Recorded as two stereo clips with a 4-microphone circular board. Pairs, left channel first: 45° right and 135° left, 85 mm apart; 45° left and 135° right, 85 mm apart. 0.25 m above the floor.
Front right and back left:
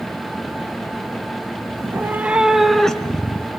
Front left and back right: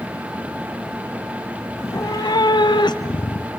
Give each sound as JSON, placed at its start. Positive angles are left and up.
{"t": 1.8, "sound": "a cat meowing", "azimuth_deg": 95, "distance_m": 0.8}